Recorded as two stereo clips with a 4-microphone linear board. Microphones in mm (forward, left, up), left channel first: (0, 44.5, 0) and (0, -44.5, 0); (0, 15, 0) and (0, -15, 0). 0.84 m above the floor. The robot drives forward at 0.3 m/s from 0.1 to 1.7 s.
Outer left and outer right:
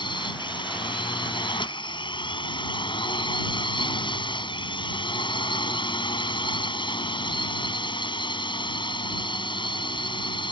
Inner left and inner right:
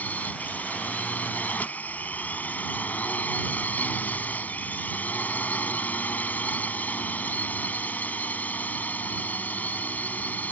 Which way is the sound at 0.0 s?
65° left (ahead or behind).